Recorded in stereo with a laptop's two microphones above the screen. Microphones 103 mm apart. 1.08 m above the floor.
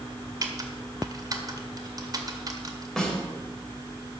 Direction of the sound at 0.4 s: 35° right (ahead or behind).